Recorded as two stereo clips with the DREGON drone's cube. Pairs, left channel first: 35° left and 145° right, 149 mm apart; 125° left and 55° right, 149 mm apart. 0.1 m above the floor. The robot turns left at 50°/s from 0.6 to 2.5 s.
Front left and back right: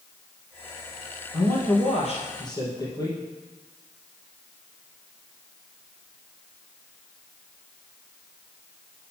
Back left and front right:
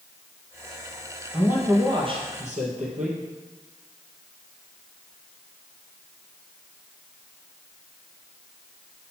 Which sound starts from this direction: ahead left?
A man speaking, at 1.3 s.